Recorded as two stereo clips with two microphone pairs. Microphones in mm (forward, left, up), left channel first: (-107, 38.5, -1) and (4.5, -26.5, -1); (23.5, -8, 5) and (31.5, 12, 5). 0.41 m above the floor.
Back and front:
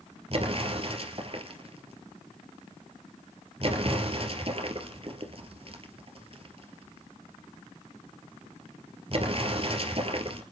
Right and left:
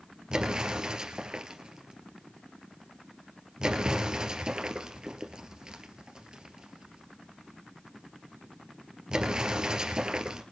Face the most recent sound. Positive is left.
turn(degrees=15)